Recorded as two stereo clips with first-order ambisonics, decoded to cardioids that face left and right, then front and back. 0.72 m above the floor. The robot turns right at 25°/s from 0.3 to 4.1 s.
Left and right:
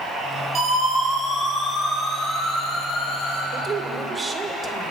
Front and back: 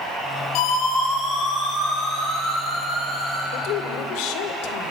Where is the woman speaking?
30° right, 2 m; by 4.9 s 15° right, 2 m.